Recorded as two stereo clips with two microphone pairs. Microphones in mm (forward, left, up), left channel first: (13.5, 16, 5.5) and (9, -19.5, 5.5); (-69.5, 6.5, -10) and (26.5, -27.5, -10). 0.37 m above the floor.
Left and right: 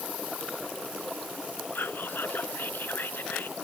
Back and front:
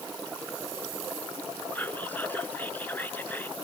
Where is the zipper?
I don't hear a zipper.